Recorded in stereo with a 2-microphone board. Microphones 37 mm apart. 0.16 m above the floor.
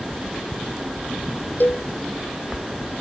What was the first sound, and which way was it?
A cowbell, 60° left (ahead or behind).